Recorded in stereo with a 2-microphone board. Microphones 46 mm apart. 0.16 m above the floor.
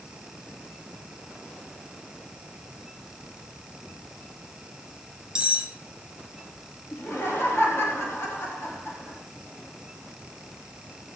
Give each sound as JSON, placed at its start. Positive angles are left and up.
{"t": 5.3, "sound": "cutlery clinking", "side_deg": -15, "distance_m": 0.7}
{"t": 6.9, "sound": "laughter", "side_deg": 55, "distance_m": 4.0}